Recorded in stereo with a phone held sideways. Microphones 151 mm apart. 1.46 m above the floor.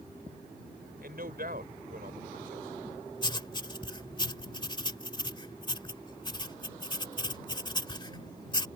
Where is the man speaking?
80° right.